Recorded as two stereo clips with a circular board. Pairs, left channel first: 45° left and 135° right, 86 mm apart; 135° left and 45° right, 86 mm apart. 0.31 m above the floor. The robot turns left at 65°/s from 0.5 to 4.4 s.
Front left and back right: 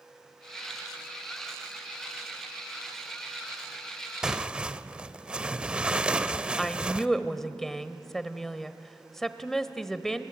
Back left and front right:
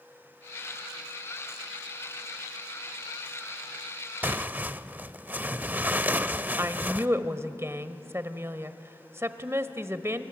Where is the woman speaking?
35° right, 1.1 m.